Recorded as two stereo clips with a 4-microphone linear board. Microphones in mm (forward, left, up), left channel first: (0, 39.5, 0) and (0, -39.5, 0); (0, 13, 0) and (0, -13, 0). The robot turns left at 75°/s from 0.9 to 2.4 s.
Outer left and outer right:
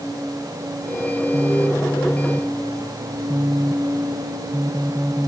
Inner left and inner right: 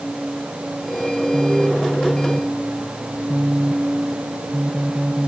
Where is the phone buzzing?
70° left; by 5.3 s 10° right.